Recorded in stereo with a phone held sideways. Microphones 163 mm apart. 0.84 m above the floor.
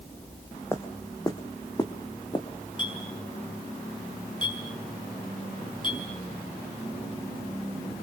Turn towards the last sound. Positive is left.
turn(degrees=30)  # may be behind; listen again after turning